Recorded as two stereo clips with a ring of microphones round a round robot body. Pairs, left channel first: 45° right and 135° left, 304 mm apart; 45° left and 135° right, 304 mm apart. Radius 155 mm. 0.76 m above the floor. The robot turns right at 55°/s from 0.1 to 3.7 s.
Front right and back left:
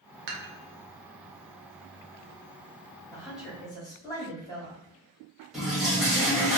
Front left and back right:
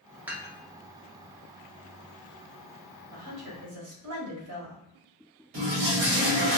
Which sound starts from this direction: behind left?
Dishes clattering, at 0.3 s.